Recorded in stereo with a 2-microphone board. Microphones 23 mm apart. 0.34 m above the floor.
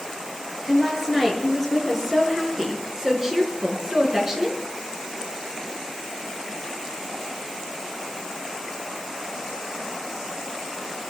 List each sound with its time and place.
0.7 s a woman speaking: 5° right (ahead or behind), 6 m; by 4.6 s 25° right (ahead or behind), 4 m